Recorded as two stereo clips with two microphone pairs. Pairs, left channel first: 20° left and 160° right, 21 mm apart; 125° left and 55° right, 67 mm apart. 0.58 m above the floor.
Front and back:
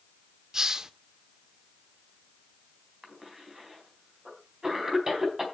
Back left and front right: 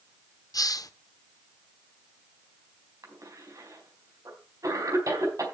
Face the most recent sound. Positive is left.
turn(degrees=-85)